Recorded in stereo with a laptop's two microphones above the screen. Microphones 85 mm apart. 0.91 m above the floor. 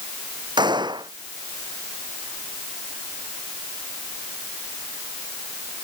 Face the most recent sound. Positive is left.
turn(degrees=-60)  # may be behind; listen again after turning